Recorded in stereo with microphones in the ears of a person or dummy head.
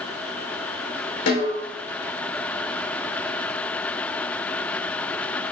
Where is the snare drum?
70° left (ahead or behind), 4 m.